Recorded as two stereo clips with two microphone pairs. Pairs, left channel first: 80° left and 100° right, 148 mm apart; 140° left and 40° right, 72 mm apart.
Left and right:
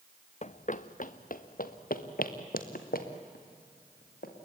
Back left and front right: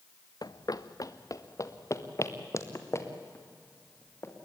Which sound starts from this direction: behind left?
Running footsteps, at 0.4 s.